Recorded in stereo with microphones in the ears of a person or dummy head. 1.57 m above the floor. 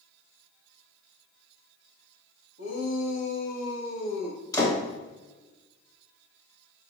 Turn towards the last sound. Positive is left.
turn(degrees=20)  # may be behind; listen again after turning